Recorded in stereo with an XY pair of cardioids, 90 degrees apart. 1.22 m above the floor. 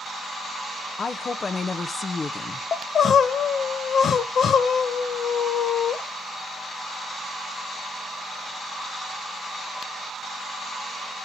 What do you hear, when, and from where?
1.0 s a woman speaking: 40° left, 1.0 m
2.7 s crying: 60° left, 1.0 m